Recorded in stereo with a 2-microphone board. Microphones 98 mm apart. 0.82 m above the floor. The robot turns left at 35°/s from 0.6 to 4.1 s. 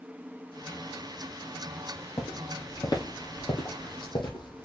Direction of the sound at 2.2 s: 40° left (ahead or behind).